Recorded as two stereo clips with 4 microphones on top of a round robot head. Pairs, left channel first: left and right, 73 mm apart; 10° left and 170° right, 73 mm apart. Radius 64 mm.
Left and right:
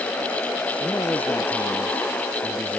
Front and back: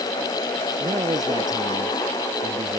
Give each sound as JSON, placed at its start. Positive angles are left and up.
{"t": 0.8, "sound": "a man speaking", "azimuth_deg": 160}